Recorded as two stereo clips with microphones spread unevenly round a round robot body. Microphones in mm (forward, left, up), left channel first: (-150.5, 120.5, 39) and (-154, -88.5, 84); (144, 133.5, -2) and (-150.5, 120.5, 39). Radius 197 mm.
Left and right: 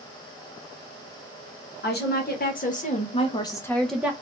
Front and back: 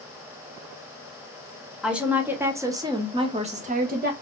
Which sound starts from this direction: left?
A woman speaking, at 1.8 s.